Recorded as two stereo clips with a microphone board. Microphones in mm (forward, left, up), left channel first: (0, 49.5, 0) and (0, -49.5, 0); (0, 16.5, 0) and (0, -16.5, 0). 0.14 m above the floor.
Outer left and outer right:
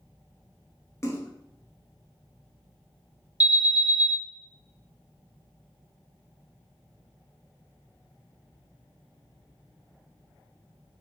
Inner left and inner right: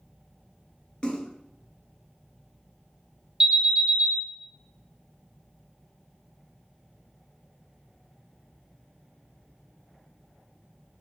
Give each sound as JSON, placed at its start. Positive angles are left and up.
{"t": 1.0, "sound": "a splash", "side_deg": 35, "distance_m": 0.8}
{"t": 3.4, "sound": "an alarm", "side_deg": -20, "distance_m": 2.5}